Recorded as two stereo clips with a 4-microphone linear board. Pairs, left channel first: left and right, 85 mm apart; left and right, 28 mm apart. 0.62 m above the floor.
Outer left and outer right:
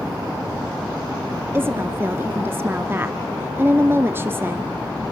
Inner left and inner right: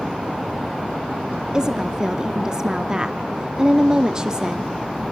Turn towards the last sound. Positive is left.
turn(degrees=-25)  # may be behind; listen again after turning